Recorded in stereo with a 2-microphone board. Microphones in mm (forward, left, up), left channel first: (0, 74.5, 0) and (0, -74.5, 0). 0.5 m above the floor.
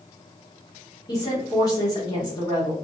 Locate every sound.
1.1 s a woman speaking: 25° left (ahead or behind), 1.1 m